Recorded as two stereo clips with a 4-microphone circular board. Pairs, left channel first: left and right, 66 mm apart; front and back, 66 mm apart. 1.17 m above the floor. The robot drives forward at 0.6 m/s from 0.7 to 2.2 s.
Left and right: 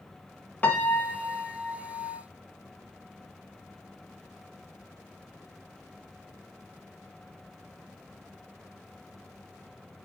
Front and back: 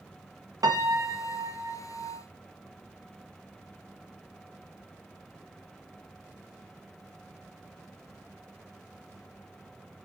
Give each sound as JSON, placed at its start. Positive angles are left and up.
{"t": 0.6, "sound": "a piano", "azimuth_deg": 155, "distance_m": 1.2}